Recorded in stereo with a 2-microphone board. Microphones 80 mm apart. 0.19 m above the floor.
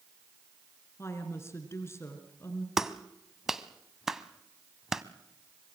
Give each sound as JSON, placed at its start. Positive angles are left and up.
{"t": 1.0, "sound": "a woman speaking", "side_deg": 35, "distance_m": 3.0}
{"t": 2.8, "sound": "a clap", "side_deg": -5, "distance_m": 0.8}